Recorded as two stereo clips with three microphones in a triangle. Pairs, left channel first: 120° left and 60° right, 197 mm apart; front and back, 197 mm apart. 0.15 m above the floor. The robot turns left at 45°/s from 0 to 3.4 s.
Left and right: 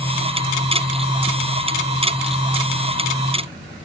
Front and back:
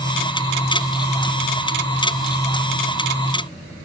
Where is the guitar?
I don't hear a guitar.